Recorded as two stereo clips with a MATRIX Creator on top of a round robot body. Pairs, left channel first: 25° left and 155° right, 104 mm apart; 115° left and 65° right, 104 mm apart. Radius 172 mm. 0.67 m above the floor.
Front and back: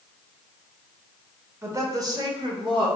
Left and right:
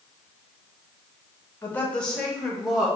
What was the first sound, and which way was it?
A woman speaking, 165° left.